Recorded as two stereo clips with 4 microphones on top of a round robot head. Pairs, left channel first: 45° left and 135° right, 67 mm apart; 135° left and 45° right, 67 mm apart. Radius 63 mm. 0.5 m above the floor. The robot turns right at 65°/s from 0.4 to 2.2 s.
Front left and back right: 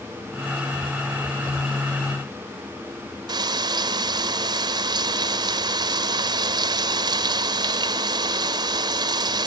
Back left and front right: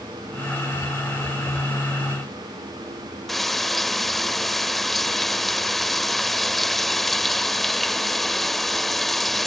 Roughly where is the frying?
Behind right.